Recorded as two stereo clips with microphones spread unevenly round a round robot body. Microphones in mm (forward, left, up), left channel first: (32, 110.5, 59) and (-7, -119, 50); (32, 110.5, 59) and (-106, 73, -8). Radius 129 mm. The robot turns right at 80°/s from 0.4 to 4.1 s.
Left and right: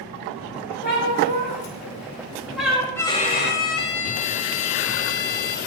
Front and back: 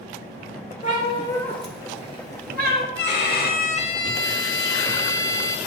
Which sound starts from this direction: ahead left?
A cat meowing, at 0.8 s.